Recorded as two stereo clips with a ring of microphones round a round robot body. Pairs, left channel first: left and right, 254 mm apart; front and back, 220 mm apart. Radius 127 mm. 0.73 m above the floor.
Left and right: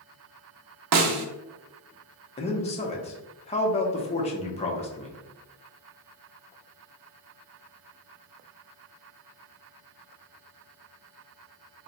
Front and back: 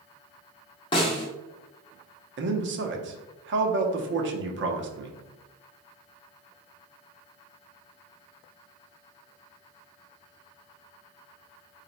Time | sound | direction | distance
0.9 | a snare drum | 75° right | 0.6 m
2.4 | a man speaking | 155° left | 0.8 m